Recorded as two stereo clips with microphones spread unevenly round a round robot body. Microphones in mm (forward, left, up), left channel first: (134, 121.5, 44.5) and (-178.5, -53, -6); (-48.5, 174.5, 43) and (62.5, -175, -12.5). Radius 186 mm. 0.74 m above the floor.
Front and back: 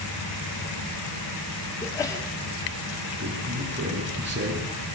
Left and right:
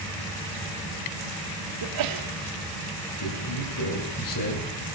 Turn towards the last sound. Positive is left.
turn(degrees=150)